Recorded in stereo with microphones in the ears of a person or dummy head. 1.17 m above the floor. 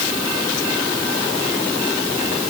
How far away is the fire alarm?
No fire alarm in this recording.